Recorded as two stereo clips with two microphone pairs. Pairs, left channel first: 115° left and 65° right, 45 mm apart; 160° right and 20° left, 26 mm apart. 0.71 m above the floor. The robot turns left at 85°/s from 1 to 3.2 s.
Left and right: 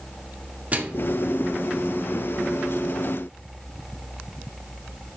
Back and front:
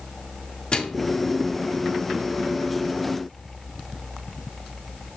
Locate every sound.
0.7 s a microwave: 110° right, 1.7 m; by 1.1 s 120° right, 1.7 m